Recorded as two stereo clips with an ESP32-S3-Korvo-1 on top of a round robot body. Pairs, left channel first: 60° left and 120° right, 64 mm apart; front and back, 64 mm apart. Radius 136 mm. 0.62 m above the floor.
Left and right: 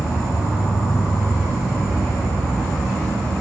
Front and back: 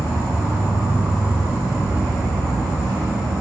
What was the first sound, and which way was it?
An insect, 150° left.